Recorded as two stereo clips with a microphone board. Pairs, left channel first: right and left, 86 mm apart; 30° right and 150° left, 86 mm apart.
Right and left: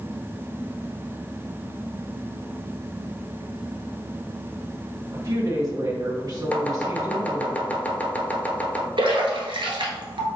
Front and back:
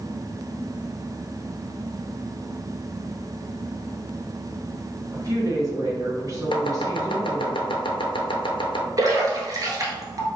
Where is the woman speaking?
120° left, 1.8 m.